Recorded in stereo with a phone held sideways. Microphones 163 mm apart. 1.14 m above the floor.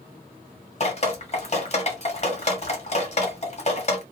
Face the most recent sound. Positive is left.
turn(degrees=45)  # may be behind; listen again after turning